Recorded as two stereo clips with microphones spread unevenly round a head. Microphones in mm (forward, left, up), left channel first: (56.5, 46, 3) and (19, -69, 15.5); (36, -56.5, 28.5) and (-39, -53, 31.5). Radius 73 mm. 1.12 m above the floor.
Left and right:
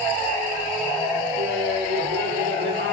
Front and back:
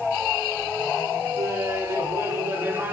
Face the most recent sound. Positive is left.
turn(degrees=-120)